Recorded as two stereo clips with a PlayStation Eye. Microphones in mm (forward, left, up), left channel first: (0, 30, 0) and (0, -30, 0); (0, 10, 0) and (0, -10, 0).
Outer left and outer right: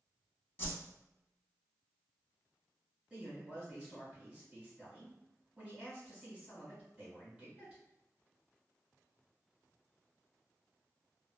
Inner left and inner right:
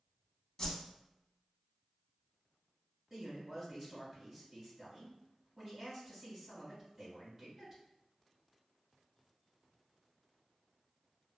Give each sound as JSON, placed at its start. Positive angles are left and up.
{"t": 0.6, "sound": "a whoosh", "side_deg": 30, "distance_m": 0.6}
{"t": 3.1, "sound": "a man speaking", "side_deg": -20, "distance_m": 1.7}